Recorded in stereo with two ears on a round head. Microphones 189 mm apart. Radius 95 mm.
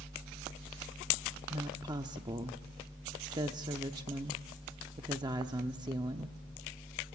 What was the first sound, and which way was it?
A woman speaking, 20° right (ahead or behind).